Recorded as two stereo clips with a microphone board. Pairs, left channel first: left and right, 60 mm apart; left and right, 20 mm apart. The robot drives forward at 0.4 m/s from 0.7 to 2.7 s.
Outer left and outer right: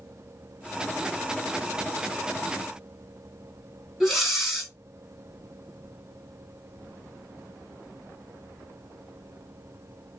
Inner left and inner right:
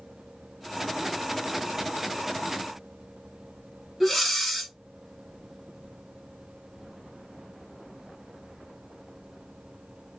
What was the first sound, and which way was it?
Breathing, centre (ahead or behind).